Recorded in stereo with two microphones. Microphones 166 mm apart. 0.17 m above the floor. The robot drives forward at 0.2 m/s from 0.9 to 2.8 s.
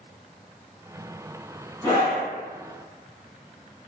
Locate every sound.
1.8 s a scream: 10° left (ahead or behind), 1.1 m